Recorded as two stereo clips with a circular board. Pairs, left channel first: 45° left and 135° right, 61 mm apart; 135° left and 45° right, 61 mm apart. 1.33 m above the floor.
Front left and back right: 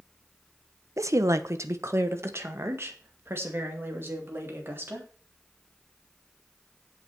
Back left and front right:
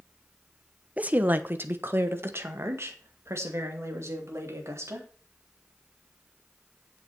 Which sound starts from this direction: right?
A woman speaking, at 1.0 s.